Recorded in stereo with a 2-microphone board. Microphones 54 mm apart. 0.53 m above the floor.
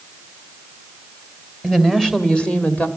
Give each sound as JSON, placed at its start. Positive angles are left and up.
{"t": 1.6, "sound": "a woman speaking", "side_deg": 5, "distance_m": 2.5}